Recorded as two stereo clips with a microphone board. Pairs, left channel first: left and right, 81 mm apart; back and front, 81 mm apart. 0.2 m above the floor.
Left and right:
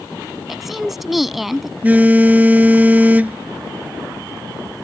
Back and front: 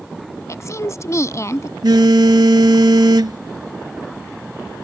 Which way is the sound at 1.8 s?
20° right.